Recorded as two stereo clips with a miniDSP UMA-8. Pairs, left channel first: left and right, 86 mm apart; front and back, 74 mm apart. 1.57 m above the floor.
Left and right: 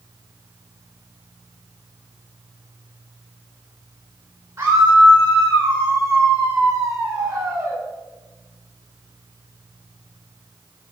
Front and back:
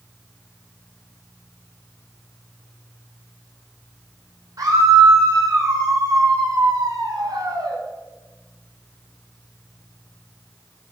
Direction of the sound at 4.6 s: 140° right.